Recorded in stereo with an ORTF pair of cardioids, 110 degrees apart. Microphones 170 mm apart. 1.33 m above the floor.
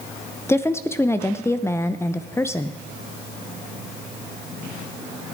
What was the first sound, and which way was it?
A woman speaking, 15° left.